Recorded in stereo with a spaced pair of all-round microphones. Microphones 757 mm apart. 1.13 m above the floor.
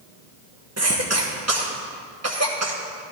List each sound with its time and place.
0.8 s a cough: 20° right (ahead or behind), 1.2 m